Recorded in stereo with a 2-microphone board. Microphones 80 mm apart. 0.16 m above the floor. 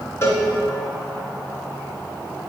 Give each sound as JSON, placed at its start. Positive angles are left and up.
{"t": 0.2, "sound": "a cowbell", "side_deg": 40, "distance_m": 1.5}